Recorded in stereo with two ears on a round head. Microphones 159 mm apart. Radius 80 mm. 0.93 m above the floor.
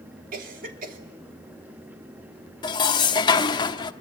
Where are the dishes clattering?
25° left (ahead or behind), 1.3 m.